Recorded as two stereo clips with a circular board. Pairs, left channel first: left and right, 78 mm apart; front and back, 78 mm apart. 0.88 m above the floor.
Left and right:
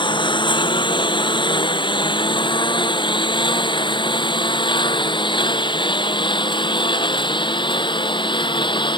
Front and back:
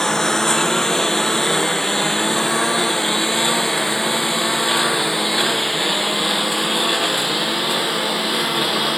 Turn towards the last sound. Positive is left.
turn(degrees=90)